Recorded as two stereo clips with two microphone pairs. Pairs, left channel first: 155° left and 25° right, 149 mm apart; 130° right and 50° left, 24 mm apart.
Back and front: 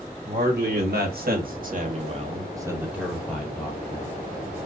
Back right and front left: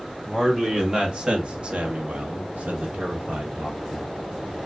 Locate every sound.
0.2 s a man speaking: 25° right, 2 m; by 4.1 s 90° left, 1.8 m